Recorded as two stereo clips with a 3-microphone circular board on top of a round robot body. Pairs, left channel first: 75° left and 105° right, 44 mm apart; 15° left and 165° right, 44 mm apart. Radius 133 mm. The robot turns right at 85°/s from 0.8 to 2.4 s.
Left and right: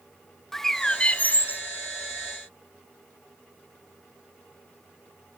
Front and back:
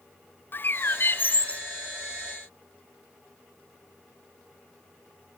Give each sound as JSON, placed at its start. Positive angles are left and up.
{"t": 0.5, "sound": "a bird", "azimuth_deg": -5, "distance_m": 0.8}